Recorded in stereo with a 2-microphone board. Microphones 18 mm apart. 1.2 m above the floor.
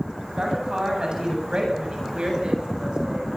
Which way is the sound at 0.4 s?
45° right (ahead or behind).